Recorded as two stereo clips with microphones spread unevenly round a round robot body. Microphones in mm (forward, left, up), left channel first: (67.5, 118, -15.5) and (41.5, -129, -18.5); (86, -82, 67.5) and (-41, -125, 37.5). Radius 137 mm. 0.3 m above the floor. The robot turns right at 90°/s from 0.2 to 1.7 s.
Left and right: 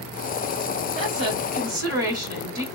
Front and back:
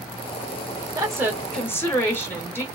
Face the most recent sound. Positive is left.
turn(degrees=-65)